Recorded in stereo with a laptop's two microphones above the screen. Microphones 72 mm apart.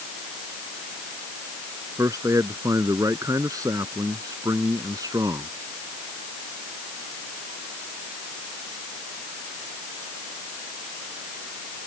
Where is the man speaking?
50° right (ahead or behind); by 5.5 s 55° right (ahead or behind).